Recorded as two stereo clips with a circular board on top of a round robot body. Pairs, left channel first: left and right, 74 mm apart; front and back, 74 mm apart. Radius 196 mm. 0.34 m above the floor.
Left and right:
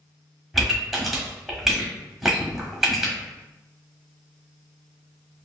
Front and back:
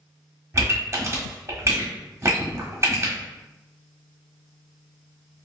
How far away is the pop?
About 1.3 m.